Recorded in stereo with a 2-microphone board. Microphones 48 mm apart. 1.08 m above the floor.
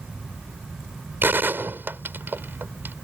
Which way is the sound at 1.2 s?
45° right (ahead or behind).